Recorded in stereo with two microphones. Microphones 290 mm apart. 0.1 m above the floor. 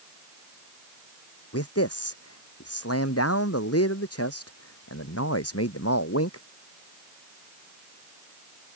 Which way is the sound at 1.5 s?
55° left (ahead or behind).